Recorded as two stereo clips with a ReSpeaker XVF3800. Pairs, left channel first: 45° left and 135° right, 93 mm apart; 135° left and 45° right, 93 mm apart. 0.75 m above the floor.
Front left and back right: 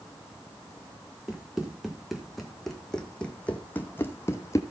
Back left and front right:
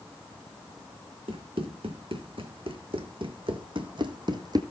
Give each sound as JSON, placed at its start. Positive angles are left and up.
{"t": 1.3, "sound": "running footsteps", "azimuth_deg": -50, "distance_m": 2.5}